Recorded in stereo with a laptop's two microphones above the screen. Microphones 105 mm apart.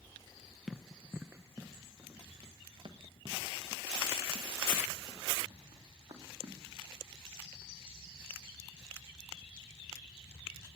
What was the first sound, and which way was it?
Running footsteps, centre (ahead or behind).